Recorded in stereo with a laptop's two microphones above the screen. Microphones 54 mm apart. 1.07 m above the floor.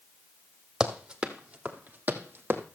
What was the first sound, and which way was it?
Running footsteps, 15° right (ahead or behind).